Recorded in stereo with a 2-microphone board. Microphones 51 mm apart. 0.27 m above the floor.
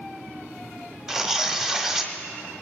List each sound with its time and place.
1.1 s tearing paper: 10° right (ahead or behind), 1.4 m